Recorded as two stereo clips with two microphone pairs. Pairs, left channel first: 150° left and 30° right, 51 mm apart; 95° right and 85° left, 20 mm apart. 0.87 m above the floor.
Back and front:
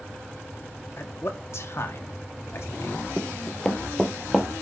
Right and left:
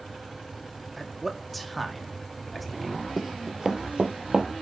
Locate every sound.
1.0 s a man speaking: 175° left, 1.5 m
3.2 s running footsteps: 140° left, 0.8 m; by 4.5 s 70° left, 1.3 m